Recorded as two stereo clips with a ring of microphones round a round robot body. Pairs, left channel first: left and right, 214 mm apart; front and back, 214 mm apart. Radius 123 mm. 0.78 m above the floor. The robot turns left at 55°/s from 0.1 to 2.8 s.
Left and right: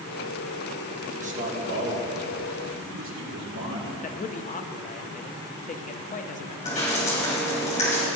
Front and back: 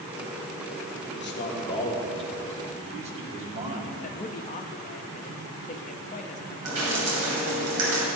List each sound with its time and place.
1.1 s a man speaking: 30° right, 1.9 m; by 3.9 s 120° right, 1.9 m
4.0 s a man speaking: 45° left, 0.7 m
6.7 s dripping: 155° left, 2.5 m